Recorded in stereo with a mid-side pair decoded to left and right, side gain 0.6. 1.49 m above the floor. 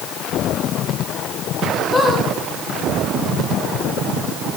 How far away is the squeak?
About 4.5 m.